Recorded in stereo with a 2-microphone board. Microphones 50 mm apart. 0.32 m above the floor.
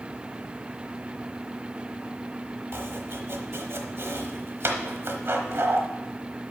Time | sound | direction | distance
2.7 | chopping | 55° right (ahead or behind) | 1.0 m